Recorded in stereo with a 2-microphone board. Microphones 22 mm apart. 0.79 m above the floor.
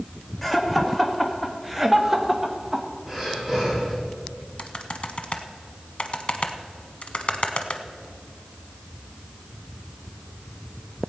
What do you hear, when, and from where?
0.4 s laughter: 5° left (ahead or behind), 1.8 m; by 2.9 s 20° right (ahead or behind), 1.1 m
3.1 s breathing: 5° right (ahead or behind), 4 m
4.6 s typing on a keyboard: 50° left (ahead or behind), 0.9 m